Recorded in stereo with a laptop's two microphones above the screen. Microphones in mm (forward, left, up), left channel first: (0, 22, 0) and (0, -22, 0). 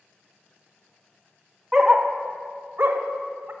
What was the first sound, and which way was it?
A dog barking, 10° right (ahead or behind).